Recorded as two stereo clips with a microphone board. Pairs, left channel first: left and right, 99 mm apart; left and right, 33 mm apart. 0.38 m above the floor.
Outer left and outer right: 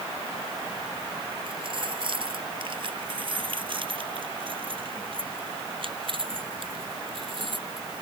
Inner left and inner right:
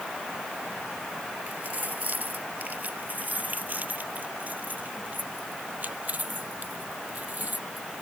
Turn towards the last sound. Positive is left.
turn(degrees=-60)  # may be behind; listen again after turning